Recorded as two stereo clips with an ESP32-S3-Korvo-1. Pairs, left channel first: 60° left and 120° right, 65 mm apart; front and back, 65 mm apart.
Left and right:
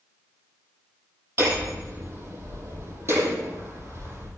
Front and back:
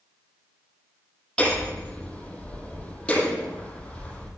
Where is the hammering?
75° right, 9.5 m.